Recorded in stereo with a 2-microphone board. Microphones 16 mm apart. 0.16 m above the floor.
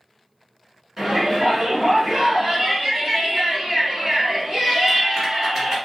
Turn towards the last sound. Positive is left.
turn(degrees=-10)  # may be behind; listen again after turning